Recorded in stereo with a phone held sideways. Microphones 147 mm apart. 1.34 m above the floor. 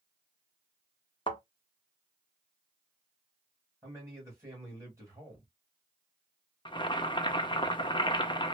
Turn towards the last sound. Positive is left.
turn(degrees=35)  # may be behind; listen again after turning